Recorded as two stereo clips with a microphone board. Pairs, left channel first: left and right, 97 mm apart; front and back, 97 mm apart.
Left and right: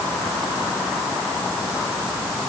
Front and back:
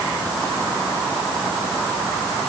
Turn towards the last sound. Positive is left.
No sound to turn to.